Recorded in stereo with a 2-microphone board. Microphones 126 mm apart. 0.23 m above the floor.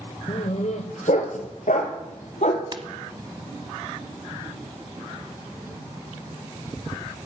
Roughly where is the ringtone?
Right.